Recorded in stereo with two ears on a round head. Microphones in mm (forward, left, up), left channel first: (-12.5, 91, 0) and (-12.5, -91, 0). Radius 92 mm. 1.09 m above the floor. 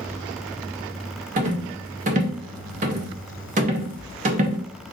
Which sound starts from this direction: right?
A rattle, at 1.4 s.